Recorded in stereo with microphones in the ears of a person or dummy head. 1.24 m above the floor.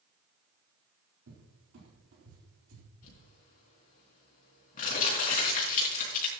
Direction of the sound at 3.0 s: 45° left (ahead or behind).